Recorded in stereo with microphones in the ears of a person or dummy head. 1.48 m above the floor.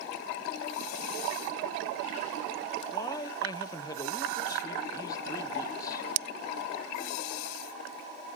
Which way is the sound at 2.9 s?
20° left (ahead or behind).